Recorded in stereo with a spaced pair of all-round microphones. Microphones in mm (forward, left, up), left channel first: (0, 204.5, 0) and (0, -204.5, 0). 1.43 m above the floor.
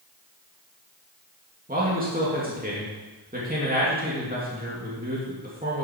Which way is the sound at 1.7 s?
20° right (ahead or behind).